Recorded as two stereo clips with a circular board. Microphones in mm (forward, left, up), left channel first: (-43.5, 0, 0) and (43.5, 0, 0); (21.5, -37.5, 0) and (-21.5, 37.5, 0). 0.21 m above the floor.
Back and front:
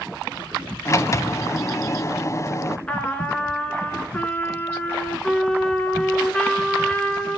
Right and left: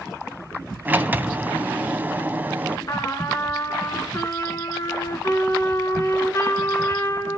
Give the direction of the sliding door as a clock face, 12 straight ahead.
6 o'clock.